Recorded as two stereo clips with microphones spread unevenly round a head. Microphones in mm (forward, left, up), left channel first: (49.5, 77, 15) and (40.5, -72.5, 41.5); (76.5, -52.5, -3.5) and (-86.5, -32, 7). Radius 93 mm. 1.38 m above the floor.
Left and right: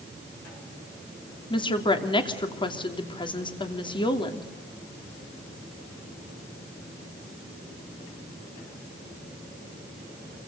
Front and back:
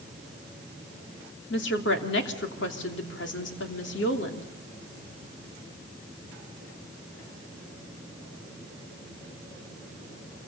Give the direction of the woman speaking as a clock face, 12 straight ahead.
11 o'clock.